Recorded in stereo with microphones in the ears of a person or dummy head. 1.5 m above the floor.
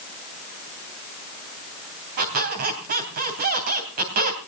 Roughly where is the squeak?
Right.